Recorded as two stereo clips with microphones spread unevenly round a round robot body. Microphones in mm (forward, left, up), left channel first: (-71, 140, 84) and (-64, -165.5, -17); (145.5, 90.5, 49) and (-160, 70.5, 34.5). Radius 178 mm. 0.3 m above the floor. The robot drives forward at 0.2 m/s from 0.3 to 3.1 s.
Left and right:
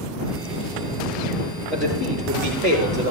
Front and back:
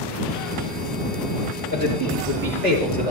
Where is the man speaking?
175° left, 7 m.